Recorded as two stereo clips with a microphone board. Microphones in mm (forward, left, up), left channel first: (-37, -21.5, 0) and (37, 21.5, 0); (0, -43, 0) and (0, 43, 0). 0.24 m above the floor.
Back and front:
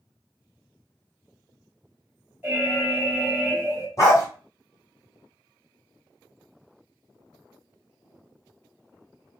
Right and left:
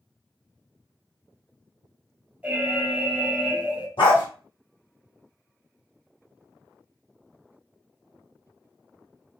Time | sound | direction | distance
2.4 | an alarm | 50° left | 1.0 m
4.0 | a dog barking | 100° right | 1.6 m